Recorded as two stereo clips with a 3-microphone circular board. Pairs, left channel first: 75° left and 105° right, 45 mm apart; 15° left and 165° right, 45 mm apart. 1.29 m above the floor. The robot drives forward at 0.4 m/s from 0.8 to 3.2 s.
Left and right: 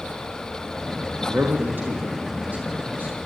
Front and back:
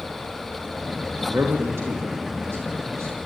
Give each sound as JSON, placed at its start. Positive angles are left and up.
{"t": 1.3, "sound": "a man speaking", "azimuth_deg": -145, "distance_m": 2.5}